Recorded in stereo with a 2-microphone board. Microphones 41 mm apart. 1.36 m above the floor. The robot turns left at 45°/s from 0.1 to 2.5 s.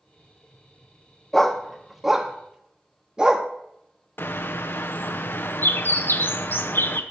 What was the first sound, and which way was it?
A dog barking, 10° left (ahead or behind).